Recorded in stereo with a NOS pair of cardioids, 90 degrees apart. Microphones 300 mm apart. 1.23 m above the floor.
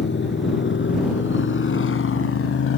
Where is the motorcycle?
40° left; by 2.8 s 55° left.